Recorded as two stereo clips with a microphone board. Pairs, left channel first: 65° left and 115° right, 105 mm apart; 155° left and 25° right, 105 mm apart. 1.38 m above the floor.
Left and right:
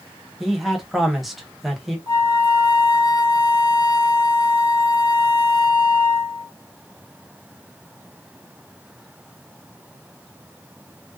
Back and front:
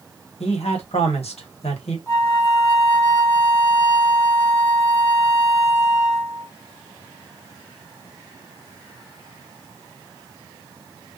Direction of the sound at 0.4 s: 160° left.